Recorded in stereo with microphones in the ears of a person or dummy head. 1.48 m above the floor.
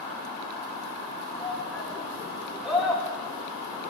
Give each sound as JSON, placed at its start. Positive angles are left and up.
{"t": 1.3, "sound": "a shout", "side_deg": -10, "distance_m": 4.0}